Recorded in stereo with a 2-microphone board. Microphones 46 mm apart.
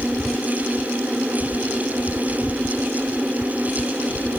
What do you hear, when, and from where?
Only background noise.